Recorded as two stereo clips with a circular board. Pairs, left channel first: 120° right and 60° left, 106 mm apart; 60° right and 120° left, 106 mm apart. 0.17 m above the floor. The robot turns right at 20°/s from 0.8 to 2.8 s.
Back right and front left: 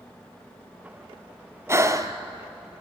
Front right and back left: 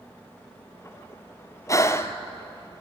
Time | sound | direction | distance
1.7 | breathing | straight ahead | 1.0 m